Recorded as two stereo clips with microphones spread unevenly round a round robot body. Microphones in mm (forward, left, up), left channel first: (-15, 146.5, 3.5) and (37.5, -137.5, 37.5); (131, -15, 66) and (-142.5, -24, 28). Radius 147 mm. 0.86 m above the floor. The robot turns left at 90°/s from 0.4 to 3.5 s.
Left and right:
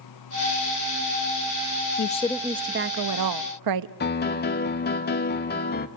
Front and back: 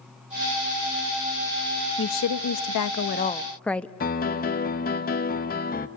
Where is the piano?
60° left, 1.2 m.